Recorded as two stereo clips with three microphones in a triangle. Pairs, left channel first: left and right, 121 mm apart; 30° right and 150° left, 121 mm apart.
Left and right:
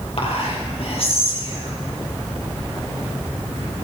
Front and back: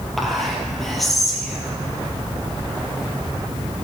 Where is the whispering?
60° left, 5 m.